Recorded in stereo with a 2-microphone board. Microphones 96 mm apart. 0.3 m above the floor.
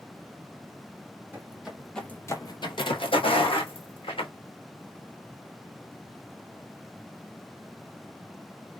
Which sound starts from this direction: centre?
Footsteps, at 1.3 s.